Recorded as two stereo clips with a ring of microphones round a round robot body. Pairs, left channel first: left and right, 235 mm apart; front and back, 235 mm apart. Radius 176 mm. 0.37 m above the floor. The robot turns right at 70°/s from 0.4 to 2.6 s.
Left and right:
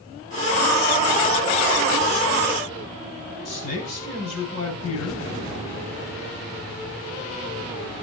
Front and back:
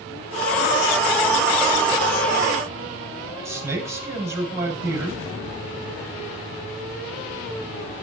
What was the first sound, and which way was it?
A man speaking, 105° left.